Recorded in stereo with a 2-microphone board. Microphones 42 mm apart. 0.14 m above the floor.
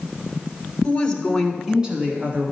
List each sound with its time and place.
0.8 s a woman speaking: 25° left (ahead or behind), 1.4 m; by 2.5 s 40° right (ahead or behind), 1.6 m